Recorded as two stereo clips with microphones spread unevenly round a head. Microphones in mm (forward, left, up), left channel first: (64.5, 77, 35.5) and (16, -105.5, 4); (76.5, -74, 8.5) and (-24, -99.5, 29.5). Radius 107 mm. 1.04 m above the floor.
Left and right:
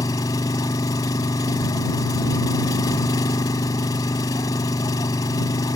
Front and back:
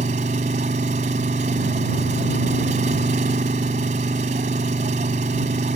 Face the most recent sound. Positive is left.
turn(degrees=150)